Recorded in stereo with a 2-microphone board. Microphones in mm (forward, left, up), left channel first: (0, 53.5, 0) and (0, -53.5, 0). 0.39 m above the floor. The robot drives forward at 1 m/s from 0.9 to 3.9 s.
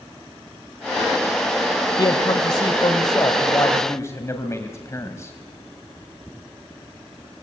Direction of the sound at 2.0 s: 45° left (ahead or behind).